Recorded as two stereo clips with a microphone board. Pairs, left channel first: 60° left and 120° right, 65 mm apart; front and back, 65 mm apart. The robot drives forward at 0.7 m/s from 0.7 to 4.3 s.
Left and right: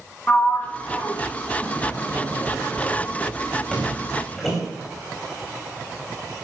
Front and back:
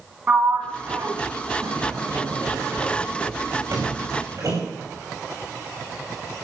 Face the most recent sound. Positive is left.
turn(degrees=140)